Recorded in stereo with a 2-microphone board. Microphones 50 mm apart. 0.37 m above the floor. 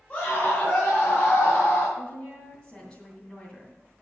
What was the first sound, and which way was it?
A scream, 30° left (ahead or behind).